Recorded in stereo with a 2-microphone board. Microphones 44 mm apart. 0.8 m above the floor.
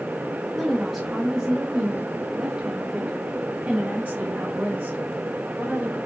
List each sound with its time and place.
0.5 s a woman speaking: centre (ahead or behind), 0.9 m; by 6.0 s 70° right (ahead or behind), 3.5 m